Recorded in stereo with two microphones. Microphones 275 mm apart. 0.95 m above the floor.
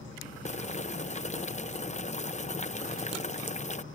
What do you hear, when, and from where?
0.5 s boiling: 25° left (ahead or behind)